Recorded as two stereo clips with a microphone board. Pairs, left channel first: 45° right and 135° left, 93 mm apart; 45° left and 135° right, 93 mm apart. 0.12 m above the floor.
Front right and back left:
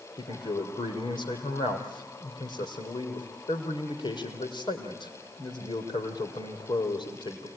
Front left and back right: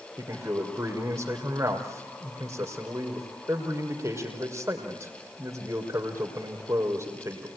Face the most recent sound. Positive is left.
turn(degrees=-75)